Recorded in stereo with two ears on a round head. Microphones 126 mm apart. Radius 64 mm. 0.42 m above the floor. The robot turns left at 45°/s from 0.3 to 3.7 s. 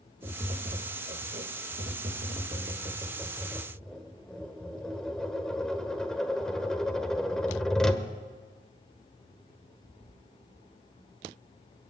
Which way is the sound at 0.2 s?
35° right.